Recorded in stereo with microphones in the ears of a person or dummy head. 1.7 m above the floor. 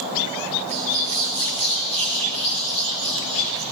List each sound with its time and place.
0.7 s a bird: 35° right (ahead or behind), 9.5 m